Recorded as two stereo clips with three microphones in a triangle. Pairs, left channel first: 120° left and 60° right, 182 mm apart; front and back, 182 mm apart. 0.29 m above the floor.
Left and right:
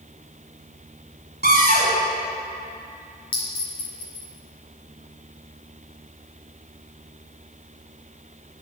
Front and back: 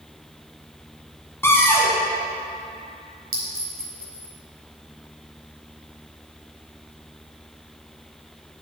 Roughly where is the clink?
Behind.